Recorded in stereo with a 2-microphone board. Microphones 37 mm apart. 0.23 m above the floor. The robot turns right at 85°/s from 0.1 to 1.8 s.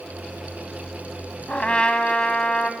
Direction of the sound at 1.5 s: 40° left (ahead or behind).